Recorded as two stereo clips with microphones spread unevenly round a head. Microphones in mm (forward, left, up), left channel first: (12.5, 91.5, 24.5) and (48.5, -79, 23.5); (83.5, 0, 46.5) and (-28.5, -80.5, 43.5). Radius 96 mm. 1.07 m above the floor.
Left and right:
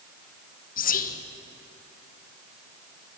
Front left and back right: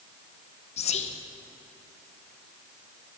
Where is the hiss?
No hiss in this recording.